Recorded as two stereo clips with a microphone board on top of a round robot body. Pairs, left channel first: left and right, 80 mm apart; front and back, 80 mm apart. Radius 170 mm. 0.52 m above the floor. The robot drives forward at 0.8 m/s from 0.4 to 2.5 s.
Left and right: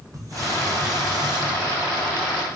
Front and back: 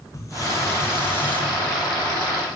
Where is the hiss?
45° right, 2 m; by 1.4 s 70° right, 1.8 m.